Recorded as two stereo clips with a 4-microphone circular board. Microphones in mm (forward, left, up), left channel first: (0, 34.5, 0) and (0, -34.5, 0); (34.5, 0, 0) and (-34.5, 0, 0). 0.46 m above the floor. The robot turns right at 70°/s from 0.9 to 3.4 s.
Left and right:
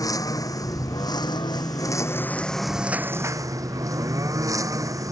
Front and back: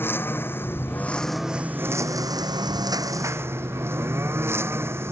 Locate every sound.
0.0 s a lawn mower: 60° left; by 5.1 s 125° right